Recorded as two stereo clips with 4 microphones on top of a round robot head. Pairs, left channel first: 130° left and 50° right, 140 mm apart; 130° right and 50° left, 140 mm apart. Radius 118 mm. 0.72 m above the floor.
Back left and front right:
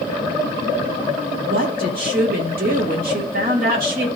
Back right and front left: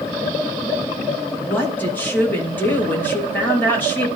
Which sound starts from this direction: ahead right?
A woman speaking, at 1.4 s.